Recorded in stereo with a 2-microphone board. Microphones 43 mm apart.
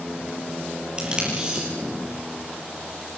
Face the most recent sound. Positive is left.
turn(degrees=-20)  # may be behind; listen again after turning